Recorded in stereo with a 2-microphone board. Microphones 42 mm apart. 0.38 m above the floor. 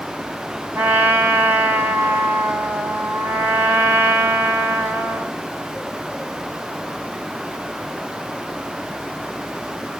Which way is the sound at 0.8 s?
50° right (ahead or behind).